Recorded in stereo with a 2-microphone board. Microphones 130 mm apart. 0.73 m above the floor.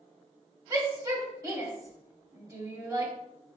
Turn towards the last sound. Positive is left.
turn(degrees=-25)  # may be behind; listen again after turning